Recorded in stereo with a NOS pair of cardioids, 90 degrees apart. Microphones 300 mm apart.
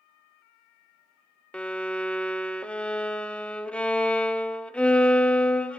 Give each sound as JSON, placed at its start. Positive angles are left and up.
{"t": 1.5, "sound": "a violin", "azimuth_deg": 5, "distance_m": 0.5}